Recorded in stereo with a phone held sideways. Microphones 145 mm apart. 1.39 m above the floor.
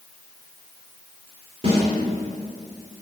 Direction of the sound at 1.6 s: 50° right (ahead or behind).